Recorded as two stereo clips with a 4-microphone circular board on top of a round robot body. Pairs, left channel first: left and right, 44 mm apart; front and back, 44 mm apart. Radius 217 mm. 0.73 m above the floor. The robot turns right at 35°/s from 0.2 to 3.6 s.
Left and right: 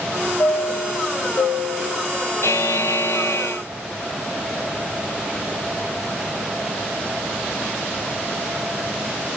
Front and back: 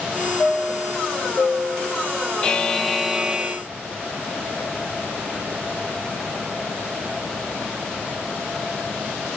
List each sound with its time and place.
0.4 s a chime: 50° left, 0.7 m; by 2.1 s 110° left, 0.7 m
2.4 s a buzzer: 75° left, 0.5 m; by 3.6 s 115° left, 0.5 m